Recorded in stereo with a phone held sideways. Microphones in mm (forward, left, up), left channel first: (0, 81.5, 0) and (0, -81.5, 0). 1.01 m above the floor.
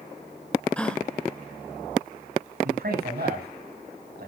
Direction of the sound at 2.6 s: 70° right (ahead or behind).